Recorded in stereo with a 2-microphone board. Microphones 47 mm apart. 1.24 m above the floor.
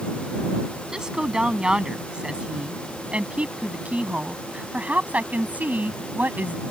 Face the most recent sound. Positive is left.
turn(degrees=-40)  # may be behind; listen again after turning